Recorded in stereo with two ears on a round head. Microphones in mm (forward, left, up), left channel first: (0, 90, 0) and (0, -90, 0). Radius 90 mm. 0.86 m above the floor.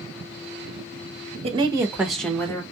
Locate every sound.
1.4 s a woman speaking: 30° right (ahead or behind), 0.8 m; by 2.6 s 15° left (ahead or behind), 1.1 m